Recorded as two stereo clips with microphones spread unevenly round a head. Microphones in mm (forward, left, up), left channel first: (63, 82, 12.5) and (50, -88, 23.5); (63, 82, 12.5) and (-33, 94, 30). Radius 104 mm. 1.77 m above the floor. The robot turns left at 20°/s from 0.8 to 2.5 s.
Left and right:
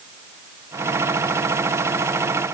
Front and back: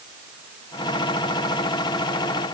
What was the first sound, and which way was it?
Only background noise.